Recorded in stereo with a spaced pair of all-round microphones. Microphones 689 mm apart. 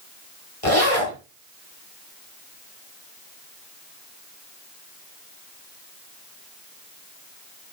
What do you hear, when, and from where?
0.6 s a zipper: 50° left (ahead or behind), 4 m